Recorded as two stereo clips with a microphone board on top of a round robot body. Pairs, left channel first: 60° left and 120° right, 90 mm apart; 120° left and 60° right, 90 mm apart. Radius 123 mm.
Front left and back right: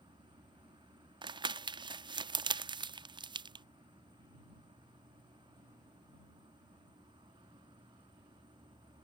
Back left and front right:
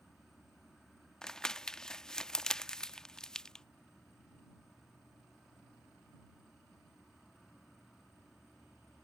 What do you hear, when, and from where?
0.0 s an insect: 150° right
1.2 s crumpling: 155° right